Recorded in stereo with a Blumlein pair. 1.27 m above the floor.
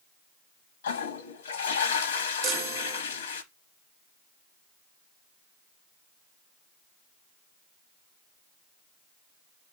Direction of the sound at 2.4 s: 30° right.